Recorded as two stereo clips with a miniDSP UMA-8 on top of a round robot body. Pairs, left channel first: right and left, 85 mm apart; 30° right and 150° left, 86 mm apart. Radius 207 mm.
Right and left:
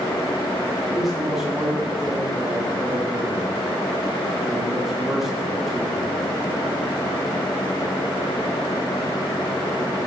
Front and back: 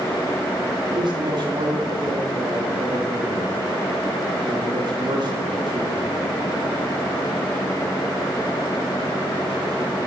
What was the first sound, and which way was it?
A man speaking, straight behind.